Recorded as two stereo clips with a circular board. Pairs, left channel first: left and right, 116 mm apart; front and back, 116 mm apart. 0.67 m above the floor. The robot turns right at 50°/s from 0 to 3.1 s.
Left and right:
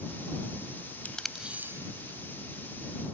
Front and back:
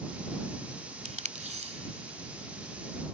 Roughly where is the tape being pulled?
Behind.